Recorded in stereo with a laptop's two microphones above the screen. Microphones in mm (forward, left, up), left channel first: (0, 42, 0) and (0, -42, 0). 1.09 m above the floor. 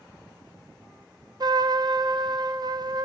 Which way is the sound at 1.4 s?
55° right (ahead or behind).